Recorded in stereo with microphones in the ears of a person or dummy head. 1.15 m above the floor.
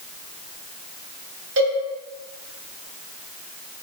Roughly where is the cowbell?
Right.